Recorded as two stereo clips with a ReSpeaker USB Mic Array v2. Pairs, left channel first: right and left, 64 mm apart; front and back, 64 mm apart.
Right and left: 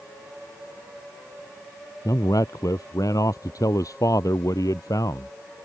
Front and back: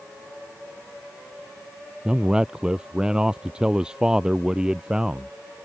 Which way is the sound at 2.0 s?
100° right.